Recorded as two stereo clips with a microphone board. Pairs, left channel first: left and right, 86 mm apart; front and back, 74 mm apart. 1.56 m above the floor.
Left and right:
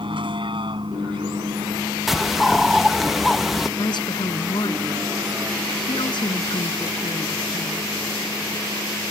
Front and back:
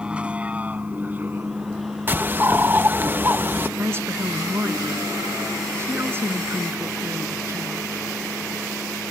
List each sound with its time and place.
0.0 s a vehicle: 105° right; by 9.1 s 145° right
2.1 s a bird: 175° right
3.8 s a woman speaking: 125° left